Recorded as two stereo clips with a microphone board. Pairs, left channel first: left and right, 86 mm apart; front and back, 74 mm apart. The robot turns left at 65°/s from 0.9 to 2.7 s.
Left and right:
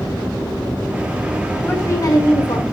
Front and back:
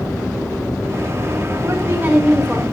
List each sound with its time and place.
1.6 s a woman speaking: 150° left, 2 m; by 2.6 s 85° left, 2 m